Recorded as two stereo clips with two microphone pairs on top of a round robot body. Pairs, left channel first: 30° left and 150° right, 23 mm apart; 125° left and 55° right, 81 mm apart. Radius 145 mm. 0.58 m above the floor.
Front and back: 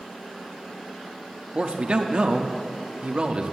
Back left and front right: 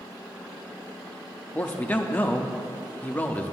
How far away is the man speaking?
About 0.7 m.